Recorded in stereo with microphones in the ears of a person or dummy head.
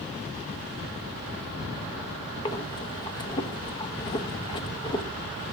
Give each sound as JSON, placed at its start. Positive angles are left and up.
{"t": 2.5, "sound": "breathing", "side_deg": 25, "distance_m": 1.0}